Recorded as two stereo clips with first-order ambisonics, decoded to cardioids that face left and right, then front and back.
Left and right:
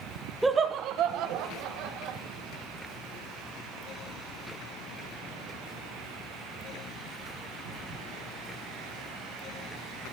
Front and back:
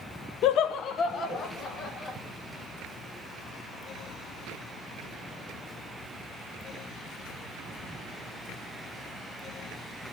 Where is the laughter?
5° right, 0.6 m; by 2.2 s 70° right, 2.5 m.